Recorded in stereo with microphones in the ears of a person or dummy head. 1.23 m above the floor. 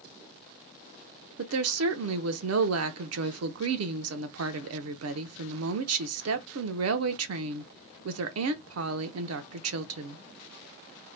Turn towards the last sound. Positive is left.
turn(degrees=-70)  # may be behind; listen again after turning